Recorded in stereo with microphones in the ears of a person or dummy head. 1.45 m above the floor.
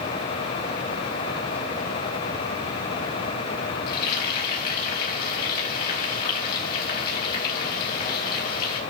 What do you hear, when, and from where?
3.9 s frying: 55° left (ahead or behind), 4.5 m